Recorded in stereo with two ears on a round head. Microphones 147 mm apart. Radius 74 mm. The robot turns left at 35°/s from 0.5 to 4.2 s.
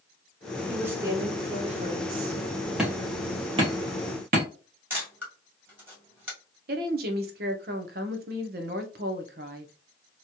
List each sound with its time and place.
0.7 s a woman speaking: 5° right, 1.2 m; by 2.4 s 65° right, 1.2 m
2.8 s hammering: 5° right (ahead or behind), 1.3 m; by 4.5 s 55° right (ahead or behind), 1.3 m
4.9 s a camera shutter: 10° right (ahead or behind), 1.6 m
6.7 s a woman speaking: 60° right (ahead or behind), 0.8 m